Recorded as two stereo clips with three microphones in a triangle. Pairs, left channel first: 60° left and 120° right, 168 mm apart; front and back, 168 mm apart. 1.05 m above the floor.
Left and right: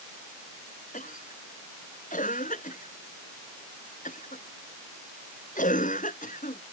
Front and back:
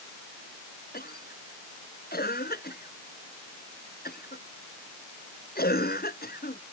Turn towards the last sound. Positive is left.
turn(degrees=20)